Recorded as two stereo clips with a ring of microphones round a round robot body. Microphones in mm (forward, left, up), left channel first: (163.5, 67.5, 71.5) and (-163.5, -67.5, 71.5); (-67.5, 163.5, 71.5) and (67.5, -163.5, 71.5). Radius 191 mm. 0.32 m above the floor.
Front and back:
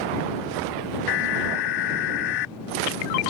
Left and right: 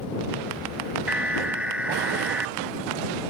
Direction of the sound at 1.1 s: 20° left.